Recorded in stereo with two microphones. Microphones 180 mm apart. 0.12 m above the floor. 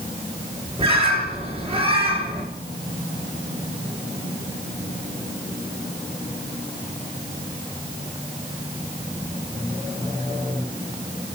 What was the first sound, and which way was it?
A bird, 35° right (ahead or behind).